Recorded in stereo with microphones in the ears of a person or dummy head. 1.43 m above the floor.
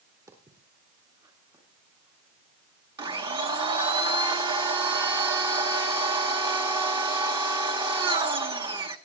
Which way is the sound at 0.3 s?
20° right (ahead or behind).